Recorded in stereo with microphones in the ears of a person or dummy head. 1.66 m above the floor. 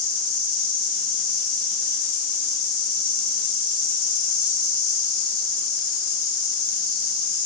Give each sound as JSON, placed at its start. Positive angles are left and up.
{"t": 0.0, "sound": "an insect", "side_deg": 35, "distance_m": 2.0}